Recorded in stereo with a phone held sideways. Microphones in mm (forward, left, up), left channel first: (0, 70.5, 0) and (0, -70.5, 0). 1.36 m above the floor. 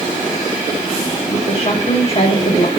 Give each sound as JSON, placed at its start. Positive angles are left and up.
{"t": 1.3, "sound": "a woman speaking", "side_deg": 45, "distance_m": 1.4}